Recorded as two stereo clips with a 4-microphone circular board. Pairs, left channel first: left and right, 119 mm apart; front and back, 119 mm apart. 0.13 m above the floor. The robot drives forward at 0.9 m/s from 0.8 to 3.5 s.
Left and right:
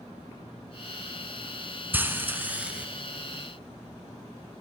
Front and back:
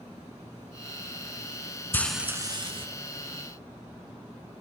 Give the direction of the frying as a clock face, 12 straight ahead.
1 o'clock.